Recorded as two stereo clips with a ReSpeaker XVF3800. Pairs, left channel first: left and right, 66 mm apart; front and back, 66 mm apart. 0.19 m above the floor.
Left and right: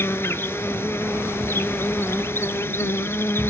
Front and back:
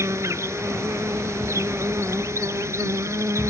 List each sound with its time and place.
0.0 s an insect: 140° left